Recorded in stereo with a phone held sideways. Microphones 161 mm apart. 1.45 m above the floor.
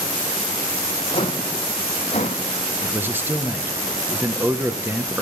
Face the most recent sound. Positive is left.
turn(degrees=-15)  # may be behind; listen again after turning